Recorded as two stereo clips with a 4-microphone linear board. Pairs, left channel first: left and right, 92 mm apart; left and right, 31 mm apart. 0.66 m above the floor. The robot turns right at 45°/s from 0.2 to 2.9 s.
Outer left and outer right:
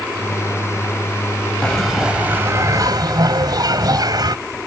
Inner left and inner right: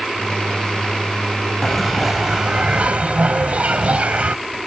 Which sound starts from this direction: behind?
A bell, at 1.6 s.